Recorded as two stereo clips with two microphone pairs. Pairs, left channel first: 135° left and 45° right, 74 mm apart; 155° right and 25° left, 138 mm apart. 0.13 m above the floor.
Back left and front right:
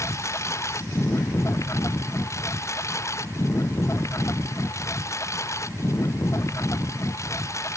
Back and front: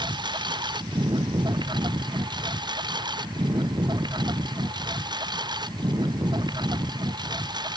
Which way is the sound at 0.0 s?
85° left.